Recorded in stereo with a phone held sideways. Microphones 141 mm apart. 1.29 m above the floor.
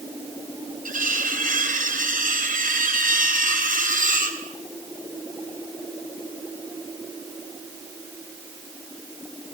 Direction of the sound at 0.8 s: 80° right.